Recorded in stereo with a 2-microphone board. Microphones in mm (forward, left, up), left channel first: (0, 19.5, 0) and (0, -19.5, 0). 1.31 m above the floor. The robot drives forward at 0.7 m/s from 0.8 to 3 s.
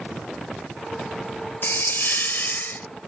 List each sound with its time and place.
1.6 s a hiss: 60° left (ahead or behind); by 2.9 s 50° left (ahead or behind)